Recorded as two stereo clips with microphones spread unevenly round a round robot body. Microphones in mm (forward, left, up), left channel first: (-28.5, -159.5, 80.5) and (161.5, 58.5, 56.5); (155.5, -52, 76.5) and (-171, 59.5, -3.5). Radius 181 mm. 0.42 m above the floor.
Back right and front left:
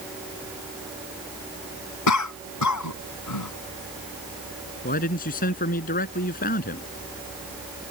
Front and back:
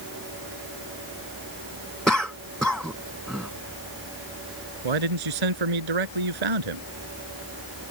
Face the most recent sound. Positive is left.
turn(degrees=165)